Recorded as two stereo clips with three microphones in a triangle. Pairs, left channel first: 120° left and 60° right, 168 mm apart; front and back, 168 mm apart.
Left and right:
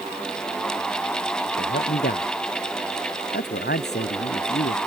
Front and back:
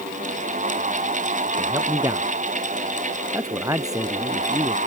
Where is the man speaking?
110° left.